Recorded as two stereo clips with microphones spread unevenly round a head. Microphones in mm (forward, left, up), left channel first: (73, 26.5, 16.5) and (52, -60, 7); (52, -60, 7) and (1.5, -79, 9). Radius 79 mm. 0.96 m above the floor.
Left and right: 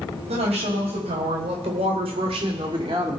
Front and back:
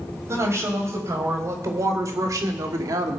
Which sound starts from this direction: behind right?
A woman speaking, at 0.3 s.